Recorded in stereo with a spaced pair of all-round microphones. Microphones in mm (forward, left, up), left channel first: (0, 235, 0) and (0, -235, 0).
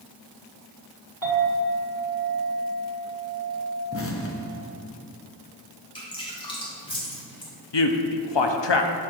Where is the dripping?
10° left (ahead or behind), 1.8 m.